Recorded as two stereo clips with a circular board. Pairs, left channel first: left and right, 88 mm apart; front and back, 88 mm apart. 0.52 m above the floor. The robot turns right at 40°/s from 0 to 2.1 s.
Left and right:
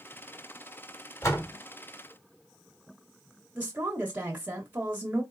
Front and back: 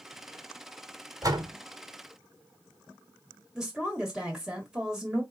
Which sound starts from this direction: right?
A woman speaking, at 3.5 s.